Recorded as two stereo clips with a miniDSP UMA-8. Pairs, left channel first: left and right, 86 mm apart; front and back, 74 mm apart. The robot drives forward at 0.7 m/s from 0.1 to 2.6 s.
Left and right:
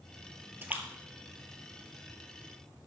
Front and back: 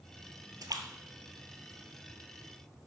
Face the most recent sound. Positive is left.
turn(degrees=-175)